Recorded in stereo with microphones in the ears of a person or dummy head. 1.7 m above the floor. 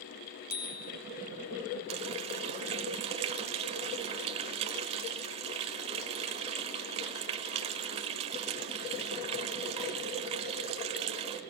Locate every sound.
0.5 s a bicycle bell: 45° left (ahead or behind), 2.5 m
1.9 s a running tap: 35° right (ahead or behind), 1.4 m